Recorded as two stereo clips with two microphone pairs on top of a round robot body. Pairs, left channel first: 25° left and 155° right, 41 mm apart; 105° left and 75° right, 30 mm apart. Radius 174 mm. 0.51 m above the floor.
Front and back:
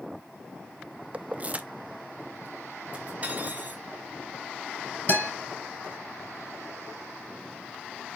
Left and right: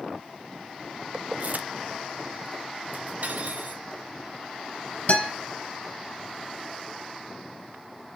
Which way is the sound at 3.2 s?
100° right.